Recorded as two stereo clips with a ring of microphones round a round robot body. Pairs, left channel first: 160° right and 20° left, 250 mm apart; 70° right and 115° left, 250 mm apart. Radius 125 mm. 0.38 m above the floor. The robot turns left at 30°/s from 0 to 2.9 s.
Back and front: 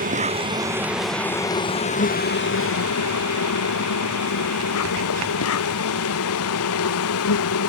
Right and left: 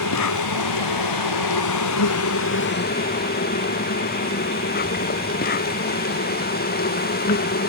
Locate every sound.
0.0 s an insect: 35° right; by 7.7 s 125° right